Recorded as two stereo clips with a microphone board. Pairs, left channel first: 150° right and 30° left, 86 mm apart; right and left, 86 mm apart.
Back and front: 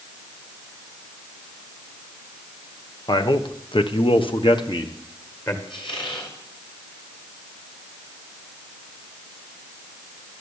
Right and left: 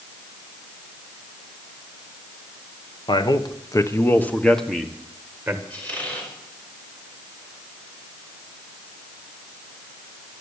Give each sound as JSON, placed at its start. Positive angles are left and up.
{"t": 3.1, "sound": "a man speaking", "azimuth_deg": -115, "distance_m": 1.3}
{"t": 5.7, "sound": "a squeak", "azimuth_deg": -165, "distance_m": 5.0}